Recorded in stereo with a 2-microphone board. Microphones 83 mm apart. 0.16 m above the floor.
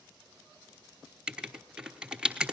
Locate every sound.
1.3 s writing: 10° right (ahead or behind), 1.2 m